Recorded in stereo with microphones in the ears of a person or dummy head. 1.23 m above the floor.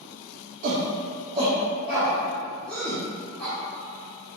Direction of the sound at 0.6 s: 45° right (ahead or behind).